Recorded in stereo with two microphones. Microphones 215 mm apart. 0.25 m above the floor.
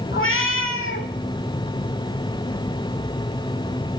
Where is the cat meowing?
70° left (ahead or behind), 0.6 m.